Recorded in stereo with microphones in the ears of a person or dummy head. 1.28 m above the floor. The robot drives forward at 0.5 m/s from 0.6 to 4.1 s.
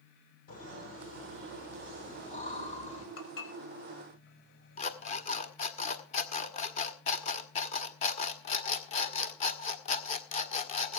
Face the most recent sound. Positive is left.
turn(degrees=30)  # may be behind; listen again after turning